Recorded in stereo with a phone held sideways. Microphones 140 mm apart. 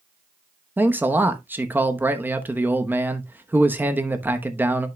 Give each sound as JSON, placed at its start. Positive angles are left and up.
{"t": 0.8, "sound": "a man speaking", "side_deg": -15, "distance_m": 0.9}